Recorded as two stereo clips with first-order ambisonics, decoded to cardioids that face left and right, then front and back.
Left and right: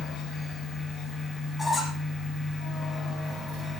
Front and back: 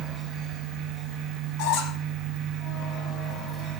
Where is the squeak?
5° left, 5.5 m.